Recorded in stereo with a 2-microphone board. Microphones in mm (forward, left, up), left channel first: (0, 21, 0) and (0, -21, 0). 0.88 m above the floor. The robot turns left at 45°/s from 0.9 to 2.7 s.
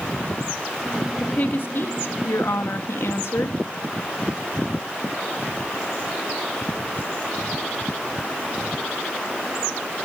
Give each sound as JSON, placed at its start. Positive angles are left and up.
{"t": 1.2, "sound": "a woman speaking", "azimuth_deg": 150, "distance_m": 0.9}